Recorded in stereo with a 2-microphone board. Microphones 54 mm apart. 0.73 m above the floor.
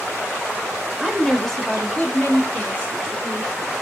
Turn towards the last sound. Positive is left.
turn(degrees=40)  # may be behind; listen again after turning